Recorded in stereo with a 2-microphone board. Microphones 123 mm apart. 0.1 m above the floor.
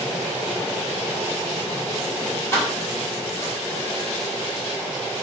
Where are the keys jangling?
25° left (ahead or behind), 2.0 m; by 3.5 s 45° left (ahead or behind), 2.5 m.